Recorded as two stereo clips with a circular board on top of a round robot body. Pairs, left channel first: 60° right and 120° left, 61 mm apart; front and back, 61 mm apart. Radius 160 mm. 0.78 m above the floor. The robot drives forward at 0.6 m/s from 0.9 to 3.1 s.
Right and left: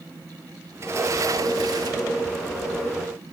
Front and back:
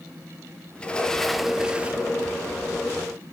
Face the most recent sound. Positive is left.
turn(degrees=140)